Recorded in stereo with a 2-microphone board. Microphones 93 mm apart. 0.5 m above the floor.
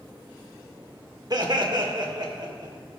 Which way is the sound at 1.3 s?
45° right (ahead or behind).